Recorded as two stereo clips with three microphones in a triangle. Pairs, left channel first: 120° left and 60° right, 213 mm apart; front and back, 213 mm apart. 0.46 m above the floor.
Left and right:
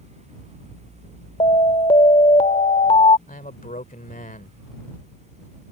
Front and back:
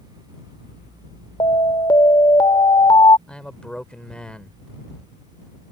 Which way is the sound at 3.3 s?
85° left.